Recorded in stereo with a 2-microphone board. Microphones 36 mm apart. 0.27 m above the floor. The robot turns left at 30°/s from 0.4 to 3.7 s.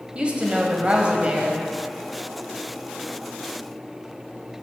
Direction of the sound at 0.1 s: 80° right.